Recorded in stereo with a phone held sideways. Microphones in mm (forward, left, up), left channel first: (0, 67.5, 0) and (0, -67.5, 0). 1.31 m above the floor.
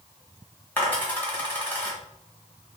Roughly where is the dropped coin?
Centre.